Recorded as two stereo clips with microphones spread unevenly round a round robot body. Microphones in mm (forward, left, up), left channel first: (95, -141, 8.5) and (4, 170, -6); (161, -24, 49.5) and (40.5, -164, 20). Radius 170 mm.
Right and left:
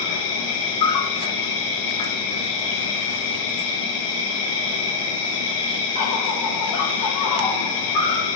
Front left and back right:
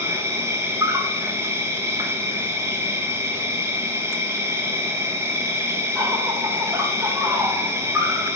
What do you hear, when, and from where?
0.0 s an insect: 60° right, 0.8 m